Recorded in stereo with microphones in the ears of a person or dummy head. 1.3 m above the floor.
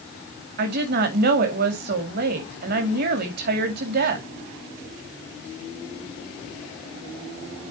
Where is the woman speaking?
50° right (ahead or behind), 2 m.